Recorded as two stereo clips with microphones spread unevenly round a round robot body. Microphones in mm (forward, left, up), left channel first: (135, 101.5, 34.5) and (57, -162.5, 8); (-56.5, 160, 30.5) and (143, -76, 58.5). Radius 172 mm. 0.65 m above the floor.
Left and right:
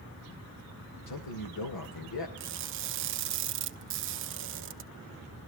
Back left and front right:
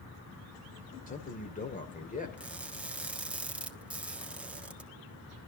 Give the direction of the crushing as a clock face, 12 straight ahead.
5 o'clock.